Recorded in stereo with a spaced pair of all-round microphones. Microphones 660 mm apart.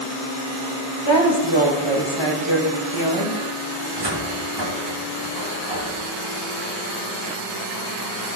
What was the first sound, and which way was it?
A woman speaking, 40° left (ahead or behind).